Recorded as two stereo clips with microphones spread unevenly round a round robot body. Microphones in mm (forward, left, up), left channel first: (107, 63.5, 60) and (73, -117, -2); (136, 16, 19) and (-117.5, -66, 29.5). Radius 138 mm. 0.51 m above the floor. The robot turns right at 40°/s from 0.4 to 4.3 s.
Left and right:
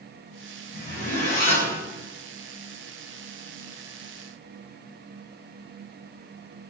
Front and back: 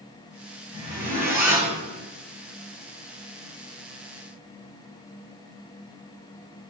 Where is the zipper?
80° left, 1.6 m; by 1.8 s 120° left, 1.6 m.